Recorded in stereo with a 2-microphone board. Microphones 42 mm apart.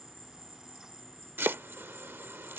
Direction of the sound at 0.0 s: 10° left (ahead or behind).